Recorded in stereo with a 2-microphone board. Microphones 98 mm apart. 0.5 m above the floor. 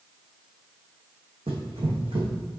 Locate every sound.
1.5 s running footsteps: 80° right, 2 m